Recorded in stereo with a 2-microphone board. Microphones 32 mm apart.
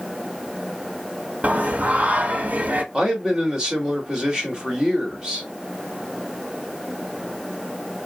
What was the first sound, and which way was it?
Singing, 60° right (ahead or behind).